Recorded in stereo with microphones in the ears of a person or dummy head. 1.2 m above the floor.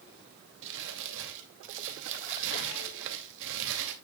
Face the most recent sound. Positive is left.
turn(degrees=-70)  # may be behind; listen again after turning